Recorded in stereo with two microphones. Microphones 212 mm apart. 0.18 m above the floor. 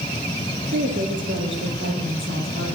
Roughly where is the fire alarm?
No fire alarm in this recording.